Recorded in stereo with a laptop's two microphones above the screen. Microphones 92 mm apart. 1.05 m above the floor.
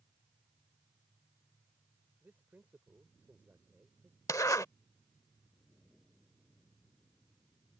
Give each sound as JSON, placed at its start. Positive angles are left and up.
{"t": 2.2, "sound": "a man speaking", "side_deg": -20}
{"t": 4.3, "sound": "a zipper", "side_deg": 35}